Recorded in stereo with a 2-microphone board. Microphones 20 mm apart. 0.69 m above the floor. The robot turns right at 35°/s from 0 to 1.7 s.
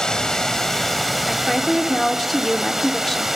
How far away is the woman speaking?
About 1.3 m.